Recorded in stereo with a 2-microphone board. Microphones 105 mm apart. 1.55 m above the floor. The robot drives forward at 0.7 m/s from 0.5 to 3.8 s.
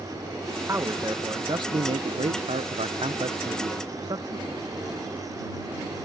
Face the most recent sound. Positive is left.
turn(degrees=-45)  # may be behind; listen again after turning